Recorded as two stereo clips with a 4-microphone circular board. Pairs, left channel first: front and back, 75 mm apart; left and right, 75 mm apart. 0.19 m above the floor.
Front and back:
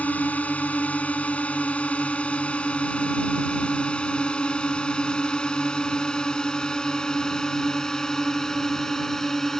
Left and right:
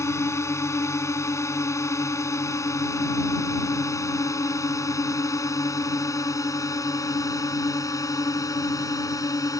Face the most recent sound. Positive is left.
turn(degrees=85)